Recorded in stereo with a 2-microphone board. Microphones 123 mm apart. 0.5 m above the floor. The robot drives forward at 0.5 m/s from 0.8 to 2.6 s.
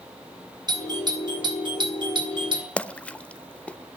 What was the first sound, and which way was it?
A doorbell, 35° right (ahead or behind).